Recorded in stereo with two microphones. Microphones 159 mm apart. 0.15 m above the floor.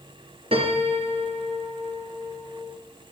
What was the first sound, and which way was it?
A piano, 40° right (ahead or behind).